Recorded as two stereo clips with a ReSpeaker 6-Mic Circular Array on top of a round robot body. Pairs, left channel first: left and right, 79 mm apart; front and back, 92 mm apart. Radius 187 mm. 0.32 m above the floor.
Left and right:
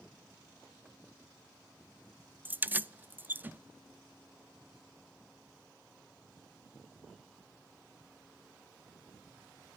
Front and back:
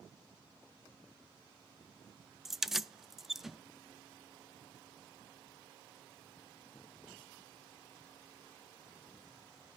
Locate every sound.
2.5 s keys jangling: 100° right, 0.7 m